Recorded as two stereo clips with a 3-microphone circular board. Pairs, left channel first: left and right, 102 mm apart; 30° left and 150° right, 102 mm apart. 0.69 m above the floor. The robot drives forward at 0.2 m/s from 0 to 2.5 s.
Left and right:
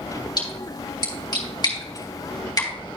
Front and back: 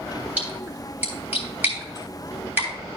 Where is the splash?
135° left, 3 m; by 2.7 s 140° left, 3 m.